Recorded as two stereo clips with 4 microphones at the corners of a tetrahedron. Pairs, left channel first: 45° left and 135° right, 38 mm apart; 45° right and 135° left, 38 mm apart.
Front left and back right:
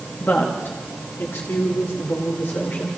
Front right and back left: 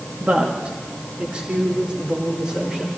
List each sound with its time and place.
0.2 s a woman speaking: 85° left, 2 m; by 2.9 s 65° left, 5 m